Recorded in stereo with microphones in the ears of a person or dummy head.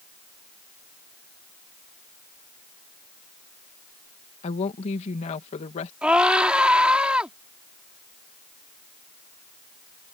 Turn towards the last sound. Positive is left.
turn(degrees=-5)  # may be behind; listen again after turning